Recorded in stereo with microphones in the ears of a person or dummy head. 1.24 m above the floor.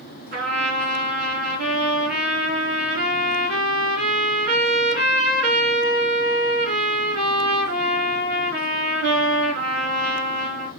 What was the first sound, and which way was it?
A trumpet, 50° right (ahead or behind).